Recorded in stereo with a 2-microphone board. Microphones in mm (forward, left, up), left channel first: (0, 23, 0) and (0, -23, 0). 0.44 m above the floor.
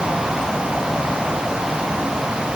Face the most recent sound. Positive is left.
No sound to turn to.